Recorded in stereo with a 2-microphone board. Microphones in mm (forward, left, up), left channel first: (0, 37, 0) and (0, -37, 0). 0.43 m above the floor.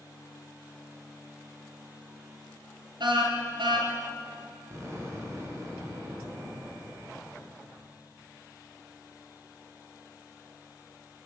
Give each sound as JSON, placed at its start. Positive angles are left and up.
{"t": 3.0, "sound": "a car horn", "side_deg": -85, "distance_m": 4.5}
{"t": 4.7, "sound": "an explosion", "side_deg": -40, "distance_m": 6.0}